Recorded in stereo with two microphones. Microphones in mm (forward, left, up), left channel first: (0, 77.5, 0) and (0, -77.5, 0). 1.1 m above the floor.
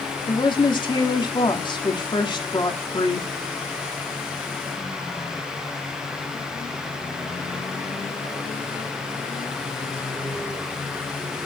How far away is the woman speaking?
About 2.5 m.